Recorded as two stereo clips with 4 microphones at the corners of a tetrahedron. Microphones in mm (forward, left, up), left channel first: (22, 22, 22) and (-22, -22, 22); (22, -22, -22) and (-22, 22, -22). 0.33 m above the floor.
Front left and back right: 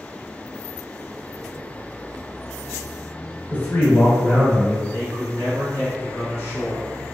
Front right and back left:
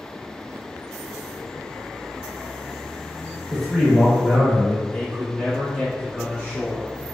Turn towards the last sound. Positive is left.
turn(degrees=65)